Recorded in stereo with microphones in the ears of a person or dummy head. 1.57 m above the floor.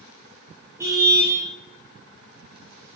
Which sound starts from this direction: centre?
A car horn, at 0.8 s.